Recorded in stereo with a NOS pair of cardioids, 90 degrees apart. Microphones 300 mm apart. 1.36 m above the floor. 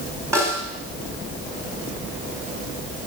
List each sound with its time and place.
0.3 s a snare drum: 10° right, 5.5 m